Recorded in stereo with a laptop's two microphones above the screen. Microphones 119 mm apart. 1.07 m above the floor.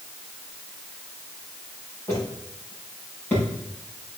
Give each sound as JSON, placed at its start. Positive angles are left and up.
{"t": 2.1, "sound": "footsteps", "side_deg": 20, "distance_m": 4.5}